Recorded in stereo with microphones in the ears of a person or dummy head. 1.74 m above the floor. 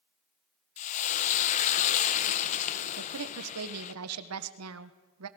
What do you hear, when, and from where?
0.8 s frying: 40° left (ahead or behind), 1.3 m
3.0 s a woman speaking: 75° right (ahead or behind), 1.5 m